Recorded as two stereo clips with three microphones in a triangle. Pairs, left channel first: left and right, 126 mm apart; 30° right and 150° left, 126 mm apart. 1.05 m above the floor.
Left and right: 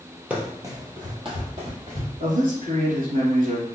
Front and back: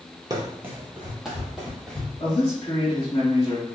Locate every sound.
0.3 s running footsteps: 160° right, 1.3 m; by 2.1 s 115° right, 2.5 m
2.2 s a man speaking: 80° right, 2 m